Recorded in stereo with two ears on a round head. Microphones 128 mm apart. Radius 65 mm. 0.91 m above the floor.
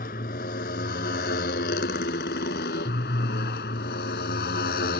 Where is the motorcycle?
60° left (ahead or behind); by 5.0 s 80° left.